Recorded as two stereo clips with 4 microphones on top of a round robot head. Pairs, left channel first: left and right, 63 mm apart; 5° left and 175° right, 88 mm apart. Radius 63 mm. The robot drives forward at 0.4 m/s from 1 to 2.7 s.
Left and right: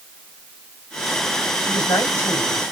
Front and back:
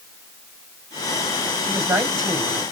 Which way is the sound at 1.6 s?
135° left.